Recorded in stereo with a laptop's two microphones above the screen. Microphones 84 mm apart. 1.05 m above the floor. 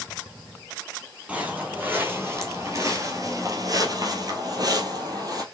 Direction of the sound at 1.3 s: 20° right (ahead or behind).